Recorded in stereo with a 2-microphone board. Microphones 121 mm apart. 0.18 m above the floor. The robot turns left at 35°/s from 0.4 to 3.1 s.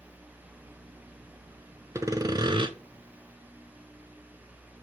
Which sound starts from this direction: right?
Sawing, at 1.9 s.